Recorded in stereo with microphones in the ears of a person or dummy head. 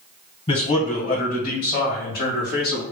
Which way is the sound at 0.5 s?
40° left (ahead or behind).